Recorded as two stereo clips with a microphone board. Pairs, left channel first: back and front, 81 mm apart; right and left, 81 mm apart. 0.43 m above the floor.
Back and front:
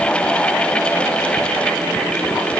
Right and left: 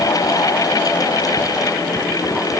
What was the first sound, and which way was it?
Only background noise.